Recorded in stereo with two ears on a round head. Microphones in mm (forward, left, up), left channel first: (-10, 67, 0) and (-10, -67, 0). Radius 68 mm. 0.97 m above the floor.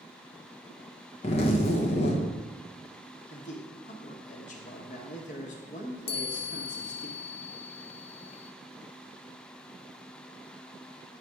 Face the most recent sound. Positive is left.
turn(degrees=40)  # may be behind; listen again after turning